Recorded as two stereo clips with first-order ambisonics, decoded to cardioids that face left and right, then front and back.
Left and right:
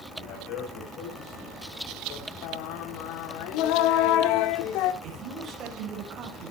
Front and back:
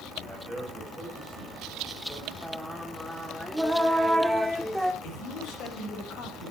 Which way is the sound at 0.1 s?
95° left.